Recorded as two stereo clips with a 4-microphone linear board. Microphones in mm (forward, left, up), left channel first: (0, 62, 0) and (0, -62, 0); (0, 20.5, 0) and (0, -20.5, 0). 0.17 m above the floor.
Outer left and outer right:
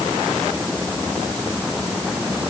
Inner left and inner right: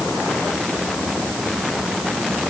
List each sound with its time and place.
Only background noise.